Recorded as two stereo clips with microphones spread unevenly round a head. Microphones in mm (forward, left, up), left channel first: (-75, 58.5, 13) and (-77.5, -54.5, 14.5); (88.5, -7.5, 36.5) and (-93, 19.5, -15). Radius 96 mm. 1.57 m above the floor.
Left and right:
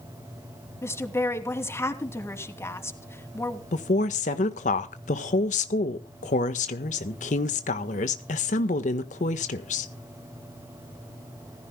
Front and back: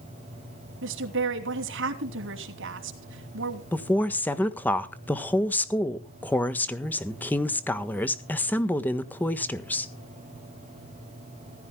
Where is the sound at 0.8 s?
155° left, 3 m.